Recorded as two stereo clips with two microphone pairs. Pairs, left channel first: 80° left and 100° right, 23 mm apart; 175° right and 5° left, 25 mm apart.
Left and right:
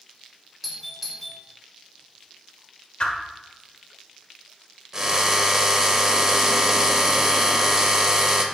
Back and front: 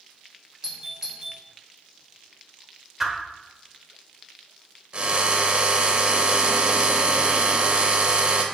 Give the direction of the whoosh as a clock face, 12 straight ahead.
9 o'clock.